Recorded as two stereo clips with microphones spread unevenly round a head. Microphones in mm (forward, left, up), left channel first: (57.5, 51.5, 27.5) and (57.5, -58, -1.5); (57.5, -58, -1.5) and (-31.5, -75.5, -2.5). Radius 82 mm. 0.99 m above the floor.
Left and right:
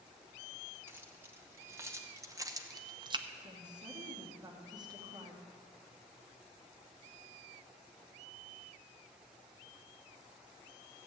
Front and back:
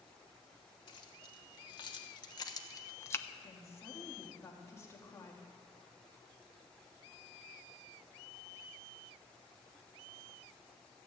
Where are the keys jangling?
20° right, 2 m; by 3.3 s 55° right, 0.7 m.